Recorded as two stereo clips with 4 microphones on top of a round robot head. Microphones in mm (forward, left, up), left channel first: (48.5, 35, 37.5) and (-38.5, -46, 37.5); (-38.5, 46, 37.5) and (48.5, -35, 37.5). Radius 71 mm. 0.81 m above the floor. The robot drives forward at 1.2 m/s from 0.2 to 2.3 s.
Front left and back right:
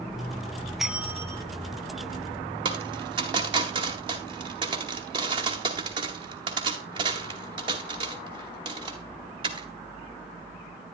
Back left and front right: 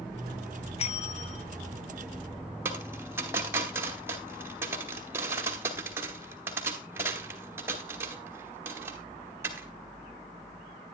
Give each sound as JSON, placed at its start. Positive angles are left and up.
{"t": 0.8, "sound": "a bell", "azimuth_deg": 135, "distance_m": 0.8}
{"t": 2.6, "sound": "a dropped coin", "azimuth_deg": -105, "distance_m": 0.9}